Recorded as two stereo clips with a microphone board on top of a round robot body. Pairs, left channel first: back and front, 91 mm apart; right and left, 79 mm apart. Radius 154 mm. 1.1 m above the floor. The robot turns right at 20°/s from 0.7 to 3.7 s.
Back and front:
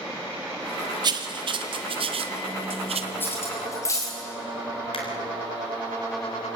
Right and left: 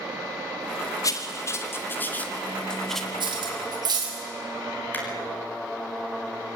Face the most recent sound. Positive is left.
turn(degrees=-155)